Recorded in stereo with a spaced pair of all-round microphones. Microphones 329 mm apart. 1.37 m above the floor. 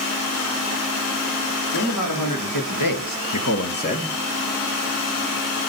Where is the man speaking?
65° left (ahead or behind), 3 m; by 4.2 s 5° left (ahead or behind), 1.3 m.